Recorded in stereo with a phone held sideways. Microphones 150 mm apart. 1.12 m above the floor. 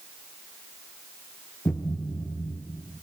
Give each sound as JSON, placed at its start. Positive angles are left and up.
{"t": 1.6, "sound": "a thud", "side_deg": 5, "distance_m": 2.5}